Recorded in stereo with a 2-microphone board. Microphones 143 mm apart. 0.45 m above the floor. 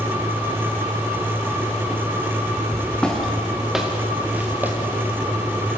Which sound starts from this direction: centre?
Footsteps, at 2.7 s.